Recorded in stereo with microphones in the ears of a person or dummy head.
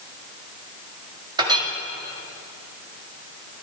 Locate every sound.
1.4 s a clink: 25° right (ahead or behind), 1.8 m